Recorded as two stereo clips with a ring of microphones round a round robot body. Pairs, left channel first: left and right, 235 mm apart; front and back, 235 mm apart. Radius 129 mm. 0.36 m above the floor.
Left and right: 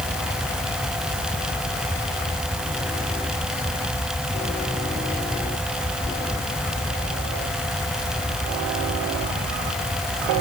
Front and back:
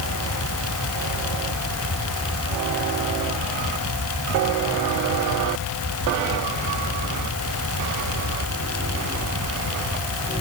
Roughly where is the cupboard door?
I don't hear a cupboard door.